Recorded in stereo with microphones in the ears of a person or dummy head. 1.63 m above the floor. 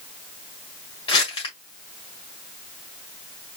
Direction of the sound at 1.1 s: 30° left (ahead or behind).